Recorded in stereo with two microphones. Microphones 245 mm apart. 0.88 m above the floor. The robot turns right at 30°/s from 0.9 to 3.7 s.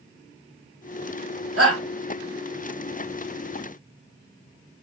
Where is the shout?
70° right (ahead or behind), 1.5 m.